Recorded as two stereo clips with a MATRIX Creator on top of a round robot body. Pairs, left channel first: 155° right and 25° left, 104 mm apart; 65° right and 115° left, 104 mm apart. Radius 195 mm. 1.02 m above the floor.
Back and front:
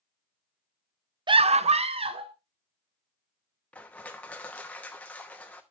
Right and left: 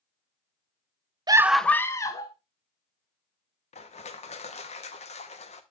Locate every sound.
1.3 s a scream: 65° left, 0.6 m; by 2.3 s 15° right, 1.7 m
3.7 s crushing: 80° right, 0.9 m